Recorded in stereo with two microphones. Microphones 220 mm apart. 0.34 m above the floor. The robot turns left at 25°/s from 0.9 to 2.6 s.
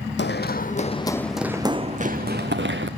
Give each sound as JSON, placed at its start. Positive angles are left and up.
{"t": 0.2, "sound": "running footsteps", "side_deg": 60, "distance_m": 0.7}